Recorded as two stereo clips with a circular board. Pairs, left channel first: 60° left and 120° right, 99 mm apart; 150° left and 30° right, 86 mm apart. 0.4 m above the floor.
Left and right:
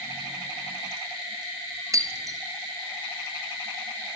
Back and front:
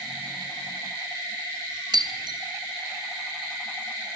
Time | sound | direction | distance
1.9 | breaking glass | 65° right | 2 m